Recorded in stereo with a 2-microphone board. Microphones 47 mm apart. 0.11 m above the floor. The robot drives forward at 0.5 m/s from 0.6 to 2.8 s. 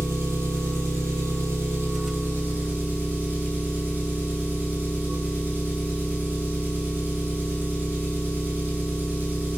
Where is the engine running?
70° right (ahead or behind), 1.0 m; by 9.6 s 40° right (ahead or behind), 1.3 m.